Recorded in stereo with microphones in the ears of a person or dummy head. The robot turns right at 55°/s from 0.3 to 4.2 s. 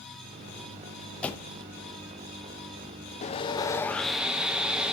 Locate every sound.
1.2 s a door slam: 5° left (ahead or behind), 0.7 m; by 1.6 s 25° left (ahead or behind), 0.7 m
3.2 s sawing: 130° left, 0.6 m; by 4.9 s 175° right, 0.6 m